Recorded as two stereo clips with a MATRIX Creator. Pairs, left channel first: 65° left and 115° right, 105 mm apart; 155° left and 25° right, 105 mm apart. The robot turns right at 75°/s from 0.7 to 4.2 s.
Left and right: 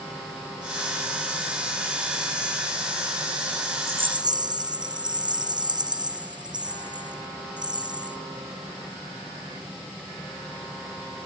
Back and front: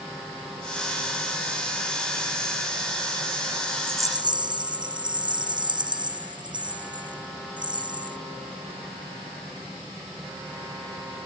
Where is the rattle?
90° right, 0.9 m; by 8.2 s 65° right, 0.9 m.